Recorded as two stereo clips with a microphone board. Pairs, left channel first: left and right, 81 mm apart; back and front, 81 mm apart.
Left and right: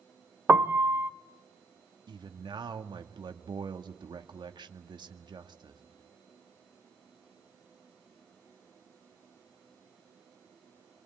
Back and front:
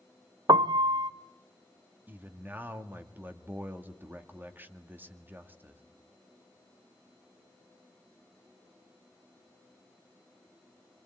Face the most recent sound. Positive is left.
turn(degrees=-65)